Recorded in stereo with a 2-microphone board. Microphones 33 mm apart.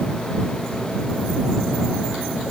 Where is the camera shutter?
I don't hear a camera shutter.